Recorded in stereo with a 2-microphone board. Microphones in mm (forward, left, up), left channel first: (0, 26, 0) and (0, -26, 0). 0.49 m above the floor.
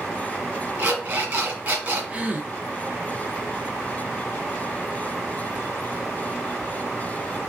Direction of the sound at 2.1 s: 20° right (ahead or behind).